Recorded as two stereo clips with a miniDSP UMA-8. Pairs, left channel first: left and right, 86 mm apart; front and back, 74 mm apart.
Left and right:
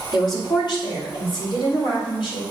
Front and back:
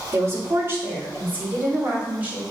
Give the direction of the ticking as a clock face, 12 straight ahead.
No ticking in this recording.